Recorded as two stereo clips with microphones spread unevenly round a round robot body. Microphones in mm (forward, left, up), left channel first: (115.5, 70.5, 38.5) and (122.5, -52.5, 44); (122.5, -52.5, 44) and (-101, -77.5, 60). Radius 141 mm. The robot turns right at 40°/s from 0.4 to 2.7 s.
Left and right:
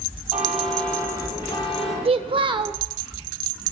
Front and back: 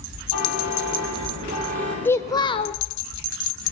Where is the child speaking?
70° right, 0.8 m; by 2.8 s 45° right, 0.8 m.